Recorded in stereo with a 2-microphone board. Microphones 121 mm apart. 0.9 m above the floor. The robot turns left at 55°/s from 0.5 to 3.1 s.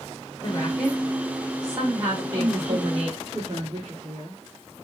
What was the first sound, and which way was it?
A woman speaking, 25° left.